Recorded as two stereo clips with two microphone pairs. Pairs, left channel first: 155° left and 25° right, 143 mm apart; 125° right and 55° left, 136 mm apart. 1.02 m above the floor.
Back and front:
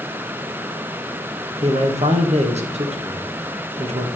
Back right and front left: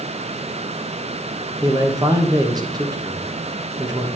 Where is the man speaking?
Straight ahead, 1.1 m.